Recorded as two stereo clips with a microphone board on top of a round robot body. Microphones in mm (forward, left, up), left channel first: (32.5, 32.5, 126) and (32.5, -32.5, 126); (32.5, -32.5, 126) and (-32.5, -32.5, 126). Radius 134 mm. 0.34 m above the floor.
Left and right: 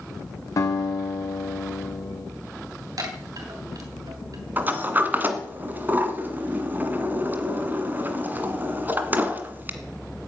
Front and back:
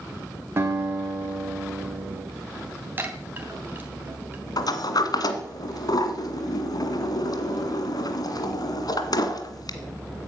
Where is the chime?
120° right, 3 m.